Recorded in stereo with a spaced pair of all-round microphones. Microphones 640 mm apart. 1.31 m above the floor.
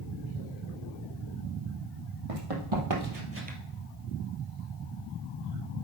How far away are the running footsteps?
About 2.5 m.